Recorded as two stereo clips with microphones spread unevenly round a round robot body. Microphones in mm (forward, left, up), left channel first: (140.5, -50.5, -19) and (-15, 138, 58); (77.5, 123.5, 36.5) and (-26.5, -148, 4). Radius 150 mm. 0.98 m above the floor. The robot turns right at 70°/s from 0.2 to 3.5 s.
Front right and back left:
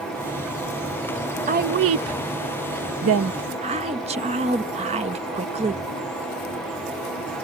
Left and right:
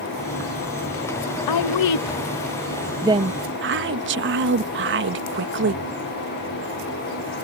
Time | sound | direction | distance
1.5 | a woman speaking | 65° left | ?